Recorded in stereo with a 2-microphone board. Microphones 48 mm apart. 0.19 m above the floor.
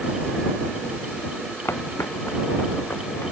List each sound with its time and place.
1.6 s footsteps: 65° left (ahead or behind); by 3.3 s 55° left (ahead or behind)